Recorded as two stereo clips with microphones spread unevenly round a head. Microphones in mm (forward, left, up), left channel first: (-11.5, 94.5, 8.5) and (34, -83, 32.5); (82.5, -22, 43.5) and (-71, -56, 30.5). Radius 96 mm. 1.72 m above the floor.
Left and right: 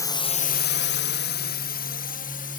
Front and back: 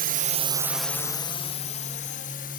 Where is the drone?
175° left; by 2.6 s 55° left.